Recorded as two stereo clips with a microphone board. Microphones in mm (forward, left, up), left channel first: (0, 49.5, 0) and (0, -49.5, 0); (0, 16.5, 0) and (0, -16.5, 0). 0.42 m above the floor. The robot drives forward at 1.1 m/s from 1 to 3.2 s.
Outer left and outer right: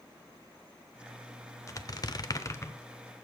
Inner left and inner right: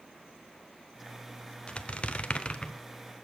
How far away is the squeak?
About 0.8 m.